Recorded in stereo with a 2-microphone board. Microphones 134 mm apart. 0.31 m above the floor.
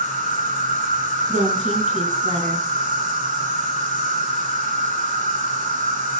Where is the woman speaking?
65° right (ahead or behind), 2.5 m.